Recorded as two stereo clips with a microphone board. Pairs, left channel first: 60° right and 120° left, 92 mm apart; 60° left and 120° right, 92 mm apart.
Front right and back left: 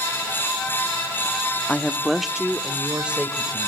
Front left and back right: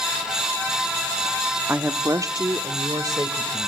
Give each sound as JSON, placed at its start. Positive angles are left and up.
{"t": 1.7, "sound": "a woman speaking", "azimuth_deg": -100, "distance_m": 0.6}